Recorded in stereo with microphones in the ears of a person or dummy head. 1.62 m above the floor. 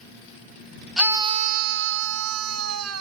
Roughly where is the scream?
Centre.